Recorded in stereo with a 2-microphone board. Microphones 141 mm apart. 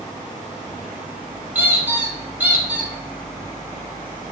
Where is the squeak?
10° right (ahead or behind), 1.5 m.